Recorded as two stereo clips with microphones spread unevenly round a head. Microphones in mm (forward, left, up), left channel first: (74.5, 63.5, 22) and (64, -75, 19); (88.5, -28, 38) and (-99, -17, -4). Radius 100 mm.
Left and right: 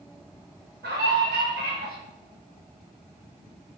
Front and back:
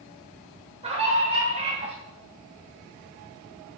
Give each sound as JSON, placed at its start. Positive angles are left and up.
{"t": 0.8, "sound": "a scream", "azimuth_deg": -125, "distance_m": 6.5}